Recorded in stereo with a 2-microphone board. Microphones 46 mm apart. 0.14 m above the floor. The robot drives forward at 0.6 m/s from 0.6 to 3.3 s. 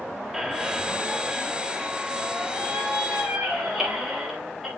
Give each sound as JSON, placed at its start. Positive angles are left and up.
{"t": 0.3, "sound": "a squeak", "side_deg": -10, "distance_m": 1.6}